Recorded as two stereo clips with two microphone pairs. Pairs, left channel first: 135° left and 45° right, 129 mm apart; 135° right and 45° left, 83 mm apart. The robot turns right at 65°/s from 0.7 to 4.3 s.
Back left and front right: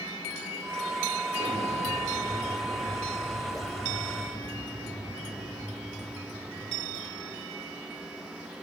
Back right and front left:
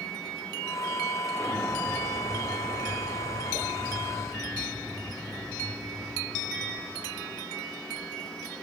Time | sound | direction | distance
1.3 | an explosion | 75° right | 6.5 m